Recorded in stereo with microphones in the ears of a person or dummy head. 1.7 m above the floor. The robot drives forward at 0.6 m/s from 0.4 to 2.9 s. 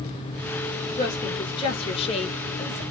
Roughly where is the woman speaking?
Left.